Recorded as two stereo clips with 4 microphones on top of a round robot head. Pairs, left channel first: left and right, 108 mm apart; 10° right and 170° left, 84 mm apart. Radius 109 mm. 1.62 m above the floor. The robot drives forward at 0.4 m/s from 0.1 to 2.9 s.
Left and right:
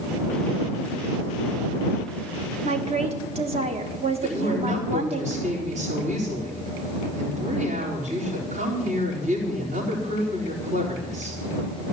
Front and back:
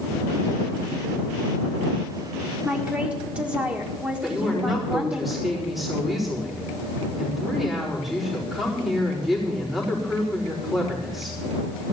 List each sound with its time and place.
2.6 s a woman speaking: 110° right, 1.4 m; by 5.2 s 115° right, 1.5 m
4.2 s a woman speaking: 100° right, 4 m